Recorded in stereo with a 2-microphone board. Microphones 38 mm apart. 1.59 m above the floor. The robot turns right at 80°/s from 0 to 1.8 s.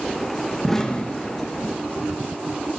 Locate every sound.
0.6 s an explosion: centre (ahead or behind), 1.6 m; by 1.8 s 80° left, 1.6 m